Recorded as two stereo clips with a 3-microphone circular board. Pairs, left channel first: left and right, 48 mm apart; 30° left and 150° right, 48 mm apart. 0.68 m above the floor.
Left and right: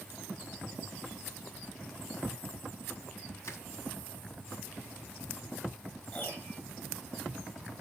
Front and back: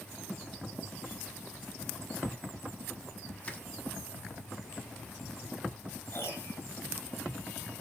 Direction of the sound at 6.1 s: 50° left.